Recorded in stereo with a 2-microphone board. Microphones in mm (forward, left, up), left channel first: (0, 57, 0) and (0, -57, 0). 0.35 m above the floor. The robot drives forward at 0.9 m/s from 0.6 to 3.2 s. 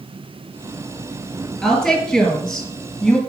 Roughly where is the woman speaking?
Centre.